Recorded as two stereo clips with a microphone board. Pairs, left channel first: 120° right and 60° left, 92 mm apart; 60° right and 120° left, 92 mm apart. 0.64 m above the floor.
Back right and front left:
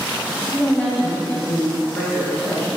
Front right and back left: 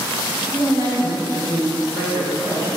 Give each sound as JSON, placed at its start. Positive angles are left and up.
{"t": 0.5, "sound": "a woman speaking", "azimuth_deg": 165, "distance_m": 2.5}